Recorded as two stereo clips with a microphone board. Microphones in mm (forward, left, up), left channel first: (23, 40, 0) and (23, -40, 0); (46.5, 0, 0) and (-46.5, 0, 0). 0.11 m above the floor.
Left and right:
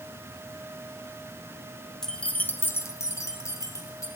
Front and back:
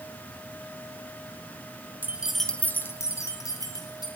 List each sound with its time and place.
2.0 s keys jangling: 160° left, 0.9 m; by 4.1 s 40° left, 2.5 m